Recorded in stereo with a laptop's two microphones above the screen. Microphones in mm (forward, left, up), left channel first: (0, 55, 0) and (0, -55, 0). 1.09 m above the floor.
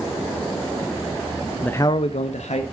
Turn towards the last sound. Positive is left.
turn(degrees=85)